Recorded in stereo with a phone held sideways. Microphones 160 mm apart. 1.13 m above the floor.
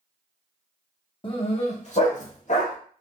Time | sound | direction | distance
1.2 | a dog barking | 35° left (ahead or behind) | 0.8 m